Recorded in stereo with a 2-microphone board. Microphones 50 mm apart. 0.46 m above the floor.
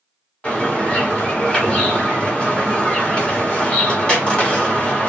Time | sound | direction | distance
0.4 | a bird | 25° left (ahead or behind) | 1.3 m